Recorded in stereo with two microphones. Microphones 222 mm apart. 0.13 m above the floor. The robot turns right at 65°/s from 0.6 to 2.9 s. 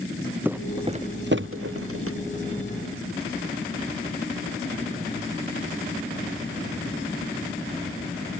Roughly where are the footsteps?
Centre.